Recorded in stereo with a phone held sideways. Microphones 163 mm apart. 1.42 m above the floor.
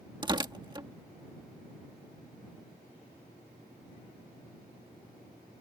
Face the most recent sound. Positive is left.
turn(degrees=-25)  # may be behind; listen again after turning